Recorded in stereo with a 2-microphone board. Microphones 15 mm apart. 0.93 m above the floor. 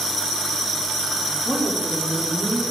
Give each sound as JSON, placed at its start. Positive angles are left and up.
{"t": 1.4, "sound": "a woman speaking", "side_deg": -50, "distance_m": 1.9}